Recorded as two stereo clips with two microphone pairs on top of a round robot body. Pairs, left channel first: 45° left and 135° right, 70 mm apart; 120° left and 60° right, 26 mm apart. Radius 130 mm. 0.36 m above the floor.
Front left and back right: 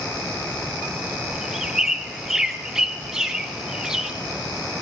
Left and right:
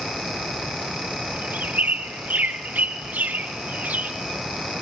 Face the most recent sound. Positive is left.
turn(degrees=-55)